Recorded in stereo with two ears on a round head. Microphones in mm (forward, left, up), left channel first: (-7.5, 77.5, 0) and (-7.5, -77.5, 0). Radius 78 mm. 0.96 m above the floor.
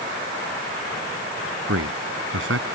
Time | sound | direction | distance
1.7 | a man speaking | 85° right | ?